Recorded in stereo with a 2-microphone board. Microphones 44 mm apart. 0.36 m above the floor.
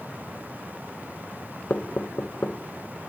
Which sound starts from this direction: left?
Knocking, at 1.7 s.